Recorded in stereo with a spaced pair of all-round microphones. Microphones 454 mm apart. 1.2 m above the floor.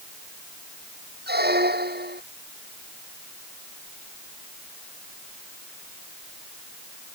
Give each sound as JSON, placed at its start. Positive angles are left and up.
{"t": 1.3, "sound": "a squeak", "side_deg": -20}